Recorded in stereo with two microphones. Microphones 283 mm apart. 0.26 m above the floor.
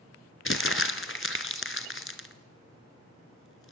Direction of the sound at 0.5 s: 45° left (ahead or behind).